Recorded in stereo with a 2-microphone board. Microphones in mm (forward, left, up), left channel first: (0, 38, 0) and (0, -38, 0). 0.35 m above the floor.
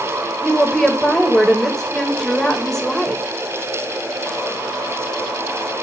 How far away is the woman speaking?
About 1.1 m.